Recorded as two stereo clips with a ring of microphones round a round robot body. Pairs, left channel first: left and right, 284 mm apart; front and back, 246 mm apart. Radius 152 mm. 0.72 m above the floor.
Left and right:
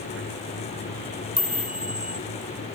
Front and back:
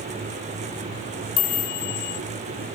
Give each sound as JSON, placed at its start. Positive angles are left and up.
{"t": 1.4, "sound": "a chime", "azimuth_deg": -5}